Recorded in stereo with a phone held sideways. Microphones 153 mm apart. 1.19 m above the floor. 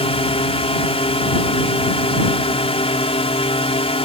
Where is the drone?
40° left (ahead or behind).